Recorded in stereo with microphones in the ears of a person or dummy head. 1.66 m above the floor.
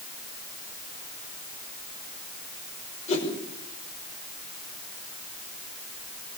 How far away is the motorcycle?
I don't hear a motorcycle.